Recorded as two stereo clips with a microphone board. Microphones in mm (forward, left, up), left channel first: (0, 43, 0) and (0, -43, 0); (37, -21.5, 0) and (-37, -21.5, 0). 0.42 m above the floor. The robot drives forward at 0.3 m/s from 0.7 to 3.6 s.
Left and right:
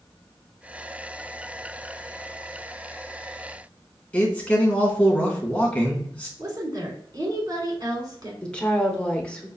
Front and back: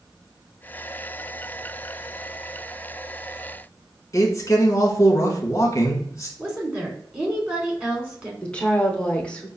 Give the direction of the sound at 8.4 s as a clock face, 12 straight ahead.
11 o'clock.